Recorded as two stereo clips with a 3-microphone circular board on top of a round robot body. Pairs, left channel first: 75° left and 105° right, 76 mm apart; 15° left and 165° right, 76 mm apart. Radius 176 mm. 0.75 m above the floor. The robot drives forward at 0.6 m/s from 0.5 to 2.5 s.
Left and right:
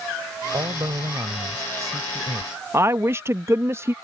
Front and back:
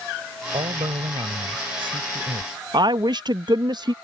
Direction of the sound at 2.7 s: 160° right.